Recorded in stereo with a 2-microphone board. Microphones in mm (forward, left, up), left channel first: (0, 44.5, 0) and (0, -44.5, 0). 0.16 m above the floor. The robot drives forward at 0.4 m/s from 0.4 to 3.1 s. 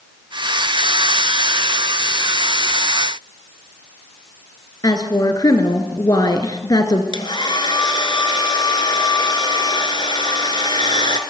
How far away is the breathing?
I don't hear breathing.